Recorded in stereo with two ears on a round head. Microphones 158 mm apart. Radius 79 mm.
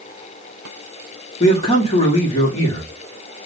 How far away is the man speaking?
About 1.7 m.